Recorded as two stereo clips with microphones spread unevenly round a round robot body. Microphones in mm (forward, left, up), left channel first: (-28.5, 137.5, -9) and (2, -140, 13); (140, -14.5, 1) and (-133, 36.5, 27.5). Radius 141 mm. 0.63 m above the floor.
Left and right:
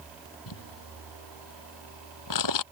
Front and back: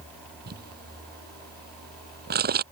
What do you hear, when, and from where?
0.5 s crumpling: 110° left